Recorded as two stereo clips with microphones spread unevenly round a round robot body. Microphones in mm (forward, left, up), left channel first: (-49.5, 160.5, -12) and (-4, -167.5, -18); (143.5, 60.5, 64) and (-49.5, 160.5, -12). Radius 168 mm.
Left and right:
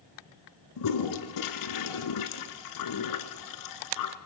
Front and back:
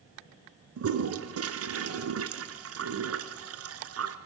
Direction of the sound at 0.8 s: 130° left.